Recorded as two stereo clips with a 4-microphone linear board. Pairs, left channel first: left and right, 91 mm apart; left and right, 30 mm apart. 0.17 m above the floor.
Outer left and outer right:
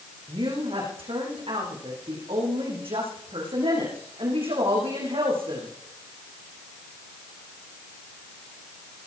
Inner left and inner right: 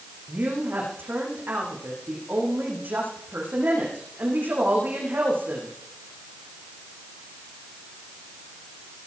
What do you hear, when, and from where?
0.3 s a woman speaking: 80° right, 10 m